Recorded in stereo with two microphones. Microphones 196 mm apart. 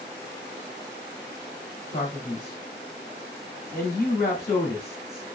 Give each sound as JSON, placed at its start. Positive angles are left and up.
{"t": 1.9, "sound": "a man speaking", "side_deg": 35, "distance_m": 1.1}